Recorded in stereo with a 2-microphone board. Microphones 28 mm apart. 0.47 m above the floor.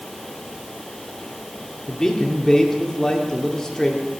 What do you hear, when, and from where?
1.9 s a man speaking: 20° left (ahead or behind), 1.1 m